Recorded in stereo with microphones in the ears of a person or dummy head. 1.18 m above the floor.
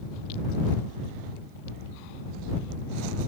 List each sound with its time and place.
Only background noise.